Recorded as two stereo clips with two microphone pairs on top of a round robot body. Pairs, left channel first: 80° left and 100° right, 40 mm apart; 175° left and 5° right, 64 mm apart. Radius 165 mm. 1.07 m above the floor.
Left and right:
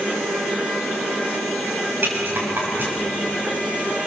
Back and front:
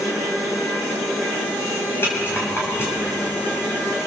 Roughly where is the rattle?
Behind right.